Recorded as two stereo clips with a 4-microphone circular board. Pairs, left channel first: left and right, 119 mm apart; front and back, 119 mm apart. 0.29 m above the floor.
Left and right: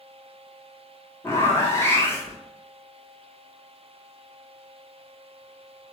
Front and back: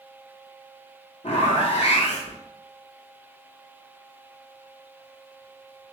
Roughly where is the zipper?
Ahead.